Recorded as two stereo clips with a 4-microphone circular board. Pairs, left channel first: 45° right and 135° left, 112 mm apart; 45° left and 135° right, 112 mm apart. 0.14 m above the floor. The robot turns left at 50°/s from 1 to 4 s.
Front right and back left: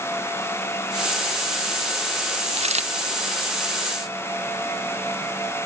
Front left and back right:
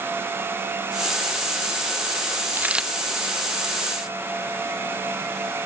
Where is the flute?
No flute in this recording.